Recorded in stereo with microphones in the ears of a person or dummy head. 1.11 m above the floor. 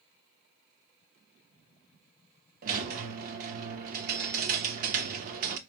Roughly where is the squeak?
Right.